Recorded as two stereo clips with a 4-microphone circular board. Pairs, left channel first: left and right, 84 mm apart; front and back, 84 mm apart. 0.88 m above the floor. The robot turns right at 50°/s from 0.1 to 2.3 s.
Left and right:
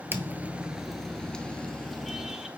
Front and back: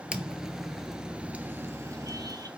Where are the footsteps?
115° right, 0.9 m; by 2.5 s 170° right, 1.2 m.